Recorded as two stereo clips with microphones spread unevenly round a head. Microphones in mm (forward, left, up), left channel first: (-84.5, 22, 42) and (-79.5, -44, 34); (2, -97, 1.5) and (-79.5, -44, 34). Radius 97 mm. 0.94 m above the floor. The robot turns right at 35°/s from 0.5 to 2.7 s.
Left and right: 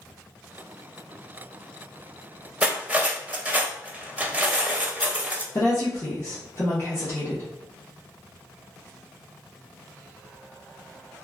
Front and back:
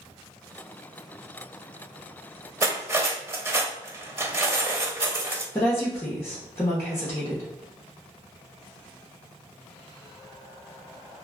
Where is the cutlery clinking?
165° right, 0.6 m; by 5.5 s 160° right, 0.6 m.